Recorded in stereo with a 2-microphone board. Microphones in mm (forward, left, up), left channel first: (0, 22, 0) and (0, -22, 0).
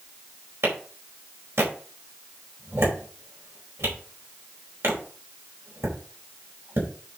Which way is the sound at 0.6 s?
80° right.